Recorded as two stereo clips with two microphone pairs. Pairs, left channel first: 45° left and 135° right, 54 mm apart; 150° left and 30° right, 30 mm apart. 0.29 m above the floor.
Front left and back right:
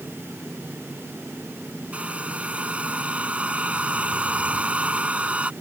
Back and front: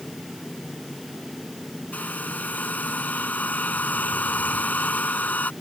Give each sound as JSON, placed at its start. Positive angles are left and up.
{"t": 1.9, "sound": "a hair dryer", "azimuth_deg": 160}